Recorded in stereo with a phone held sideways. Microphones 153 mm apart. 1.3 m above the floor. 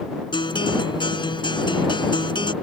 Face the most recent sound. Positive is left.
turn(degrees=30)  # may be behind; listen again after turning